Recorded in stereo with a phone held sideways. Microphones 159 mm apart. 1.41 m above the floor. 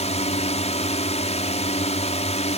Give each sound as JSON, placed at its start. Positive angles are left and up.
{"t": 0.0, "sound": "a drone", "side_deg": 45}